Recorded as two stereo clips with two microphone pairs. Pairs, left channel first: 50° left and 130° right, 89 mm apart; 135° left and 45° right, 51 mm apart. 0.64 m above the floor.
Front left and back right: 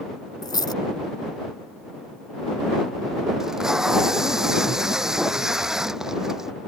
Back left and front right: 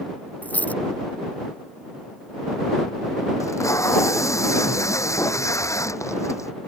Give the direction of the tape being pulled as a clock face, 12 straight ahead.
7 o'clock.